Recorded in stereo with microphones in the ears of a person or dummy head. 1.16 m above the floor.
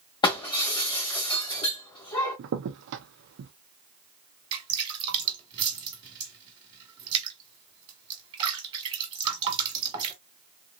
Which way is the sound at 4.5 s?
25° right (ahead or behind).